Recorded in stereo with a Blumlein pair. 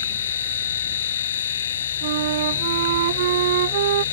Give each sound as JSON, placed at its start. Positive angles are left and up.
{"t": 0.0, "sound": "a machine running", "azimuth_deg": 60}
{"t": 2.0, "sound": "a flute", "azimuth_deg": -55}